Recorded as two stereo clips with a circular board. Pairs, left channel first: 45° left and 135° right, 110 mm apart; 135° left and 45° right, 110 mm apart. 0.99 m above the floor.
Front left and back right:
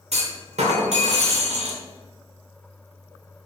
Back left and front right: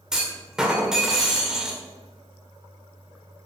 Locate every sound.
0.1 s a clunk: 130° right, 1.7 m